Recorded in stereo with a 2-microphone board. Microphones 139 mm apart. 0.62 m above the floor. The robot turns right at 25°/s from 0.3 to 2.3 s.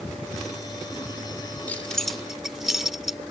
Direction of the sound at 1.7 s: 10° left (ahead or behind).